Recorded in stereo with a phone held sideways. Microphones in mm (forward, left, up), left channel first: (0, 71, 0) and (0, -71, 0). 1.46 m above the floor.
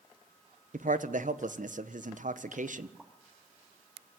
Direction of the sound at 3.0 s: 5° right (ahead or behind).